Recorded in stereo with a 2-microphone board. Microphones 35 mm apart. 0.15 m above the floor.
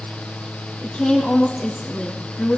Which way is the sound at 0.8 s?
35° left (ahead or behind).